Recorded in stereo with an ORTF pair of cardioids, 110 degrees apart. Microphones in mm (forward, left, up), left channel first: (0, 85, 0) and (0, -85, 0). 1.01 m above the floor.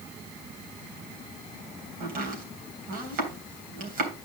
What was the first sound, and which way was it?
Chopping, 55° right.